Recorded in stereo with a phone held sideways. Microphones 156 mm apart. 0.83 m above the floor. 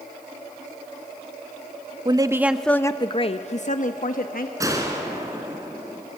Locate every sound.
2.0 s a woman speaking: 30° right (ahead or behind), 0.7 m; by 4.5 s 65° left (ahead or behind), 1.3 m
4.6 s a gunshot: 20° right (ahead or behind), 2.5 m